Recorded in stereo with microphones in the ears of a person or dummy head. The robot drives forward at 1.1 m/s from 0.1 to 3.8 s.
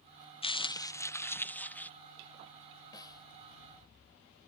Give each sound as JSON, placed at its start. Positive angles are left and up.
{"t": 0.4, "sound": "crumpling", "side_deg": 30}
{"t": 2.9, "sound": "a snare drum", "side_deg": 20}